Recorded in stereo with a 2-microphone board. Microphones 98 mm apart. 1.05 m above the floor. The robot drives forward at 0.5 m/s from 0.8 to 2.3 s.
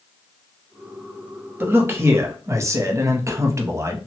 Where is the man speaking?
20° right (ahead or behind), 0.9 m; by 4.0 s 30° right (ahead or behind), 0.6 m.